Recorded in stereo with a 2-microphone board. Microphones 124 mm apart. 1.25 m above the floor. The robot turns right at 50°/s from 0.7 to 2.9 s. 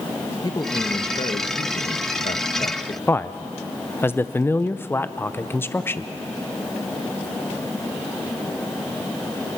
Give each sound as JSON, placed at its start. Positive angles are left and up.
{"t": 0.4, "sound": "a man speaking", "azimuth_deg": 30, "distance_m": 1.1}
{"t": 3.1, "sound": "a man speaking", "side_deg": 20, "distance_m": 0.6}